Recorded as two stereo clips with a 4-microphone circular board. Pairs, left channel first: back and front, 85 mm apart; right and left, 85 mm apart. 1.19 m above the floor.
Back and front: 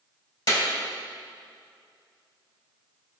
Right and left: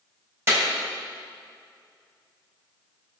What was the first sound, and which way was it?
A clap, 150° left.